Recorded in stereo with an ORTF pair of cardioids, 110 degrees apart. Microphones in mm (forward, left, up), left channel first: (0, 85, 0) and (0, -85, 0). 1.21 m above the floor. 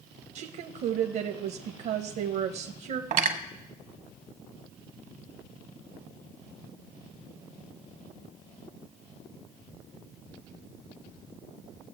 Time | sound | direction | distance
0.3 | a woman speaking | 70° right | 1.0 m
3.1 | cutlery clinking | 55° right | 0.9 m